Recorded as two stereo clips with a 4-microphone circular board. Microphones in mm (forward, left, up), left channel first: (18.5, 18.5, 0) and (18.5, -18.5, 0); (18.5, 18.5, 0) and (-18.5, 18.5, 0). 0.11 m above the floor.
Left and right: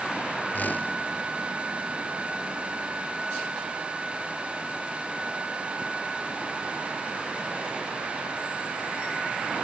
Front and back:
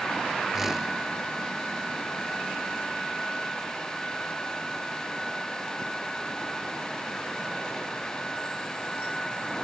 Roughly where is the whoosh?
Left.